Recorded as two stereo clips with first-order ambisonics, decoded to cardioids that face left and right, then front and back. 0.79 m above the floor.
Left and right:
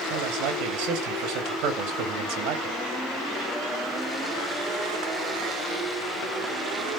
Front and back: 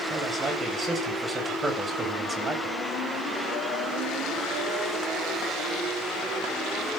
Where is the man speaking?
105° right, 4 m.